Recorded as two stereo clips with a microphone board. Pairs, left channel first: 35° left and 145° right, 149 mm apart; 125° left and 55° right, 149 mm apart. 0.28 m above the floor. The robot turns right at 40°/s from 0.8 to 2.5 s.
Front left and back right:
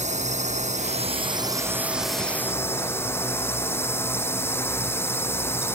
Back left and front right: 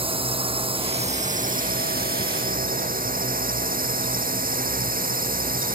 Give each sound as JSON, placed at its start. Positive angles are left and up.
{"t": 0.0, "sound": "a drone", "azimuth_deg": -110}